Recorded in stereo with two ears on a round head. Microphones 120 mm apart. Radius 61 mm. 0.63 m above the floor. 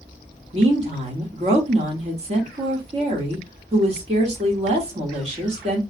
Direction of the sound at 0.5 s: 50° right (ahead or behind).